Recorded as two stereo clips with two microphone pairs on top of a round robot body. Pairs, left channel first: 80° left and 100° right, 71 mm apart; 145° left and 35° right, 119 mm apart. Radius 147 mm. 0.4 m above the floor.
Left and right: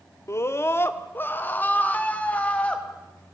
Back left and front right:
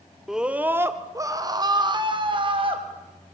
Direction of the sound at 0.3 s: 55° left.